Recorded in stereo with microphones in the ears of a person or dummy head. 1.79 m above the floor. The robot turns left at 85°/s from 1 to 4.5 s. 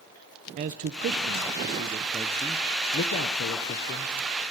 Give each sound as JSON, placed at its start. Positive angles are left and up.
{"t": 0.6, "sound": "a man speaking", "side_deg": -40, "distance_m": 0.9}